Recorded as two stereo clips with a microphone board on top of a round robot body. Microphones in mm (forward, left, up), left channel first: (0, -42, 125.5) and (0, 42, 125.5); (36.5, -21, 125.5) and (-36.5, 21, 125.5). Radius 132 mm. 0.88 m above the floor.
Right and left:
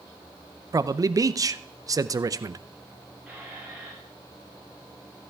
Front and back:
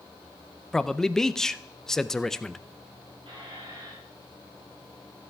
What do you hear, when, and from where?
0.7 s a man speaking: 55° left, 0.5 m
3.3 s a squeak: 170° left, 3.5 m